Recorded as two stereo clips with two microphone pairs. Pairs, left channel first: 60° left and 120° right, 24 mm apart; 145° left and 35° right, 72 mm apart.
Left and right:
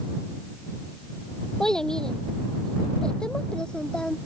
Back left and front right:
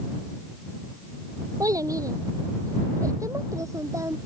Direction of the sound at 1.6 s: 5° right.